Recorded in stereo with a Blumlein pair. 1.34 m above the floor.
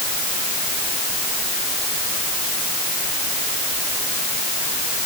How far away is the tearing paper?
No tearing paper in this recording.